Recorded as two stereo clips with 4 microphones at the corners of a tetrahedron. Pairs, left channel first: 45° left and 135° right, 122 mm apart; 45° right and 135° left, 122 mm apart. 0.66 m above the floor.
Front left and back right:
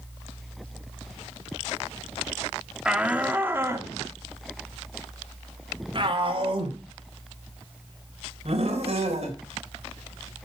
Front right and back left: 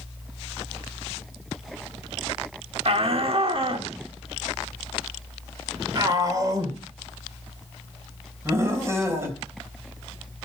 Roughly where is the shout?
Behind left.